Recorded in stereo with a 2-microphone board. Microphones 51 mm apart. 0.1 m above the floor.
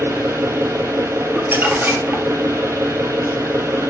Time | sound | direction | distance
0.0 | an engine running | 70° right (ahead or behind) | 1.0 m
1.4 | crumpling | 45° right (ahead or behind) | 1.6 m